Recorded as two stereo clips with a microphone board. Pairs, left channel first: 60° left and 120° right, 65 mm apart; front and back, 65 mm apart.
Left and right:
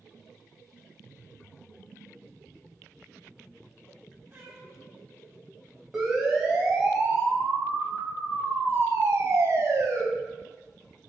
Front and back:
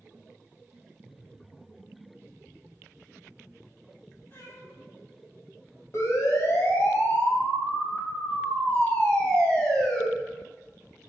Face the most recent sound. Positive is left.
turn(degrees=-80)